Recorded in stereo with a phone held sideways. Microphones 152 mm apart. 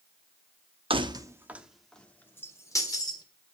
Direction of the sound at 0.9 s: 35° right (ahead or behind).